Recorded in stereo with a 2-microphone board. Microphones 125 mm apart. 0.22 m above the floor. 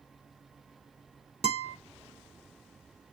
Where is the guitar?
60° right (ahead or behind), 0.6 m.